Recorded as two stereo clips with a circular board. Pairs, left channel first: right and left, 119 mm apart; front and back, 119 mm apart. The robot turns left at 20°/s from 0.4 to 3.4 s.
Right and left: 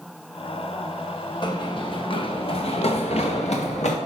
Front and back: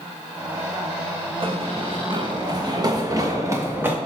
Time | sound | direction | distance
1.4 | running footsteps | 140° right | 1.8 m